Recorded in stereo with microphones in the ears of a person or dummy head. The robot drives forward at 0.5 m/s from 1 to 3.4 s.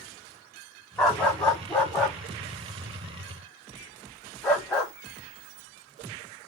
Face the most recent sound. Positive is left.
turn(degrees=5)  # may be behind; listen again after turning